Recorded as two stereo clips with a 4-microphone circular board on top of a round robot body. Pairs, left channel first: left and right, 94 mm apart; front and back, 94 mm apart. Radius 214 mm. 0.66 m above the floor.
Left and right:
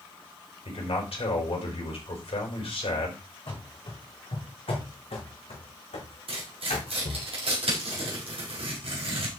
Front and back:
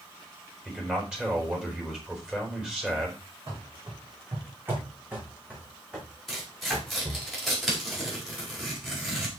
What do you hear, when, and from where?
0.7 s a man speaking: 100° left, 5.5 m
3.5 s running footsteps: 125° left, 3.5 m; by 7.3 s 90° left, 4 m
6.3 s tearing paper: 90° right, 4.5 m